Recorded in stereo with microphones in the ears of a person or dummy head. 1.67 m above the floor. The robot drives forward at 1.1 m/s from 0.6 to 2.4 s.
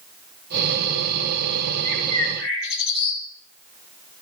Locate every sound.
1.8 s a bird: 80° left, 6 m; by 3.2 s 85° left, 6 m